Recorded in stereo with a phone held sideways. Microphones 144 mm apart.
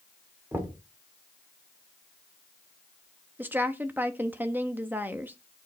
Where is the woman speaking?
10° right (ahead or behind), 0.7 m.